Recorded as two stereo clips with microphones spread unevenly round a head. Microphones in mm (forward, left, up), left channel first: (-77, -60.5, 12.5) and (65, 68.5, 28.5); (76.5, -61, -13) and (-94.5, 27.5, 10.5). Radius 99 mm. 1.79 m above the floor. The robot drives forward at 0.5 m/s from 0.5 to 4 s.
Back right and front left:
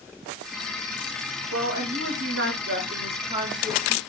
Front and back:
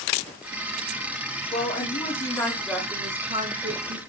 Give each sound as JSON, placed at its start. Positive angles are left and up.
{"t": 1.5, "sound": "a woman speaking", "azimuth_deg": 30, "distance_m": 1.1}